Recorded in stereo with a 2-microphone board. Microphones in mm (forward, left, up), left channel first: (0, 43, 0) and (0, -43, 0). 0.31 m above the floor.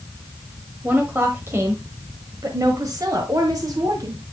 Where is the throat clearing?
I don't hear throat clearing.